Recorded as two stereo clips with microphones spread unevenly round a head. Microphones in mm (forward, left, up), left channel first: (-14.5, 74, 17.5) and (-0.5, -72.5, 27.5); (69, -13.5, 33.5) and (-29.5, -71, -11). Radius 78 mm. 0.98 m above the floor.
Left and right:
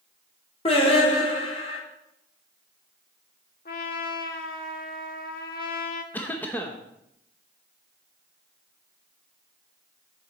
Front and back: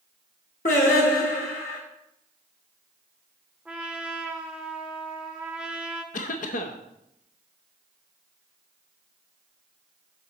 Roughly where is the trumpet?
Left.